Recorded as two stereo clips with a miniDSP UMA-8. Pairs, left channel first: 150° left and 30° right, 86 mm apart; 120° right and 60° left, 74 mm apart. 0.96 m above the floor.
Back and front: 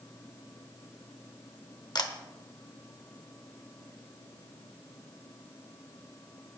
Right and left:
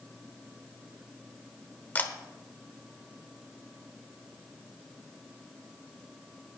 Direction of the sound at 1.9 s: 175° left.